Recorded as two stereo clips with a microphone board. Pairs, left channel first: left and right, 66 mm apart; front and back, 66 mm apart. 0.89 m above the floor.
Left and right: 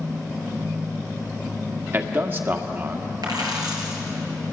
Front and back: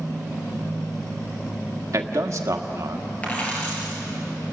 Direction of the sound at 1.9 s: 140° right.